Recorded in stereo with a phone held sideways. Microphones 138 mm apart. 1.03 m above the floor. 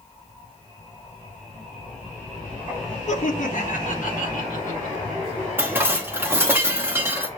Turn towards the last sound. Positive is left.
turn(degrees=-15)  # may be behind; listen again after turning